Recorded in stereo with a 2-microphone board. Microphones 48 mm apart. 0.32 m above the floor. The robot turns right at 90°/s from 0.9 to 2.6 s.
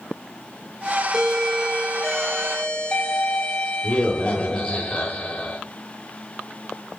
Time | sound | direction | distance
1.1 | a doorbell | 15° right (ahead or behind) | 1.4 m